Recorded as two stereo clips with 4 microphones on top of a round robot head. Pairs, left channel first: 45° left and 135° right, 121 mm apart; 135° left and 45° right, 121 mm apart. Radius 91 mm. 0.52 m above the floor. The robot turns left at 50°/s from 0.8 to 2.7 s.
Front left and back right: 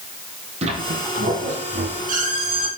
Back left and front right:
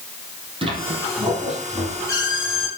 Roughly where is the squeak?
Right.